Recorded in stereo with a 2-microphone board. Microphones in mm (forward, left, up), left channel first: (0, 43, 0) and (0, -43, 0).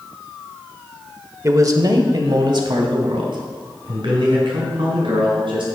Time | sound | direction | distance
1.4 | a man speaking | 40° right (ahead or behind) | 0.9 m